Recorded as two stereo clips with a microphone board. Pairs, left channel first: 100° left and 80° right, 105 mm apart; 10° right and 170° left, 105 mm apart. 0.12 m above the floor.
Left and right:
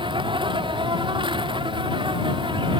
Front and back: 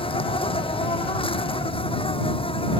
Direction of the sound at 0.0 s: 40° right.